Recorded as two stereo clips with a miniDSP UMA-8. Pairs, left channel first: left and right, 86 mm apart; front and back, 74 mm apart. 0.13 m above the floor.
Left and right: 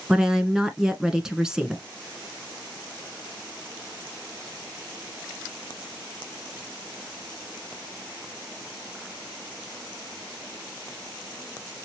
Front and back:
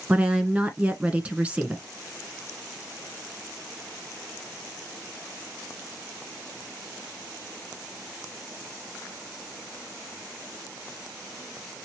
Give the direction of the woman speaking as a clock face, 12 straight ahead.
5 o'clock.